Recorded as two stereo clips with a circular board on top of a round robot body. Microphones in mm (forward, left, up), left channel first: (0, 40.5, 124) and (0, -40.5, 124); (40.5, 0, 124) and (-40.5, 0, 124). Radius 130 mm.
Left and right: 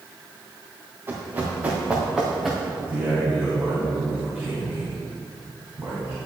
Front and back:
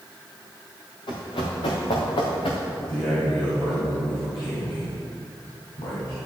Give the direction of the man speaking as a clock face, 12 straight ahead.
1 o'clock.